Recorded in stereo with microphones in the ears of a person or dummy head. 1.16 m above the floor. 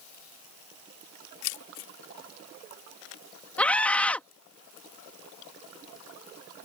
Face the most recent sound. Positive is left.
turn(degrees=15)  # may be behind; listen again after turning